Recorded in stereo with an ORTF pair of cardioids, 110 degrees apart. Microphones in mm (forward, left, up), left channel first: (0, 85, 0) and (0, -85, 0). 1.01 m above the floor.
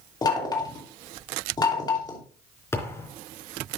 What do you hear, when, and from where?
0.2 s knocking: 25° left, 2.5 m
2.7 s a thud: 15° left, 4 m